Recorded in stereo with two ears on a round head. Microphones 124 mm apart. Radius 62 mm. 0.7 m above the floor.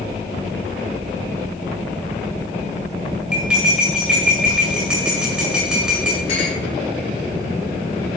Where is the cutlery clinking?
5° right (ahead or behind), 2.0 m.